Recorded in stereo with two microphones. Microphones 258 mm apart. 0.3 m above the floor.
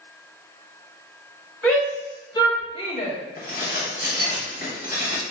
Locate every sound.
1.6 s a shout: 10° left (ahead or behind), 1.8 m; by 3.1 s 30° left (ahead or behind), 1.5 m
3.4 s dishes clattering: 35° left (ahead or behind), 1.0 m